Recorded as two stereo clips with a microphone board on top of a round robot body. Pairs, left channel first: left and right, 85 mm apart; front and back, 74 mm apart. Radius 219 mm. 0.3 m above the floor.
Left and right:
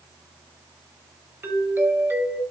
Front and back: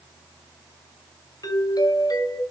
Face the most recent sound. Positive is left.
turn(degrees=-25)